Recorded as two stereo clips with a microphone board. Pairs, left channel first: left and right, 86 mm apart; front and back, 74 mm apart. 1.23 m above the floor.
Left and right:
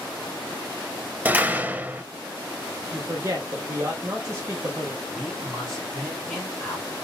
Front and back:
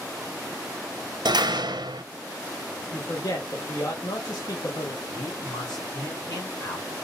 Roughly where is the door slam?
Behind.